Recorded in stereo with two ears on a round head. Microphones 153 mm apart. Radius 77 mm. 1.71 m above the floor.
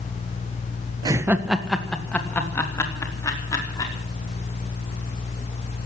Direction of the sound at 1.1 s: 25° right (ahead or behind).